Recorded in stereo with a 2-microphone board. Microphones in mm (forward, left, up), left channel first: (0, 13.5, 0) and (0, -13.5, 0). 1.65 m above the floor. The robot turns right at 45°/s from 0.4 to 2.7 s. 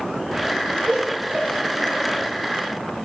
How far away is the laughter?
About 1.3 m.